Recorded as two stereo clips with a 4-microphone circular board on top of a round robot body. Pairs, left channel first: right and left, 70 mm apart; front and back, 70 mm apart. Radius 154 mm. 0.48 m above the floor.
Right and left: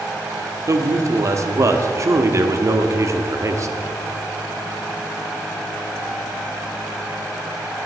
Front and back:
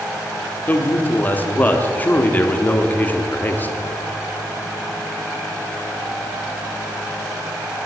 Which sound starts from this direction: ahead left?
A man speaking, at 0.7 s.